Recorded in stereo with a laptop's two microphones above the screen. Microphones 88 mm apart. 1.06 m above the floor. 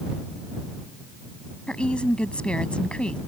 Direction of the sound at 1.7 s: 10° left (ahead or behind).